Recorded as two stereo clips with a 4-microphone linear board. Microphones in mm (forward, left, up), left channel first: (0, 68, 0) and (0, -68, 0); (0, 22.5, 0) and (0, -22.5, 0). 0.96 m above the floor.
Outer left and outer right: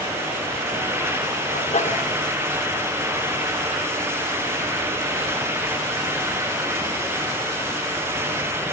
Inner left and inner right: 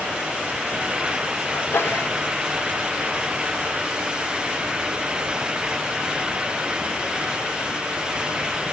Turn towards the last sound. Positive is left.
turn(degrees=60)  # may be behind; listen again after turning